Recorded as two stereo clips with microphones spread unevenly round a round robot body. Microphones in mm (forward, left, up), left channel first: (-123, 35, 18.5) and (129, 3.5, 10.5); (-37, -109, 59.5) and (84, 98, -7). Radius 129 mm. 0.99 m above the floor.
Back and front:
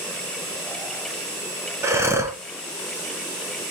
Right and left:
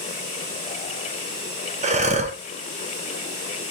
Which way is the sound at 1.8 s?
65° left.